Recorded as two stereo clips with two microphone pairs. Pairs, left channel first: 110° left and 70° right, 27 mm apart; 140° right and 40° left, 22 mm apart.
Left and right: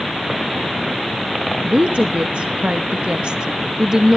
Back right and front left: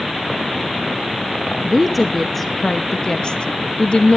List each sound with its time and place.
1.6 s a woman speaking: 40° right, 1.0 m; by 4.2 s 135° right, 1.2 m